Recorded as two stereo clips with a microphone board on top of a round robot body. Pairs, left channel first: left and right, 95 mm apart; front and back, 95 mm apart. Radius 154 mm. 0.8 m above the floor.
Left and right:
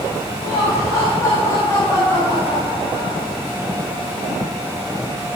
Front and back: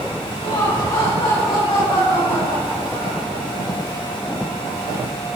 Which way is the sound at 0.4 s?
35° left.